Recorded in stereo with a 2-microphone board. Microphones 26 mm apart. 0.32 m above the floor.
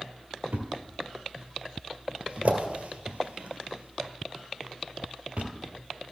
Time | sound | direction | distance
0.5 | a thud | 60° right (ahead or behind) | 1.9 m